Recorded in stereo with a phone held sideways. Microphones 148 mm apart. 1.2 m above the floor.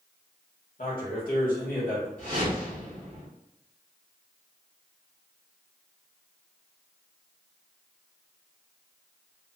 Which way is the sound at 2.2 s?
75° left (ahead or behind).